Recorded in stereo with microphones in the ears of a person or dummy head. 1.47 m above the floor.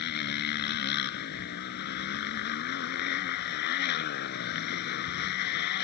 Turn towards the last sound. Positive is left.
turn(degrees=65)  # may be behind; listen again after turning